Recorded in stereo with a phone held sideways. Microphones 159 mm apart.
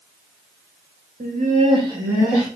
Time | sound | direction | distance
1.2 | laughter | 60° right (ahead or behind) | 1.0 m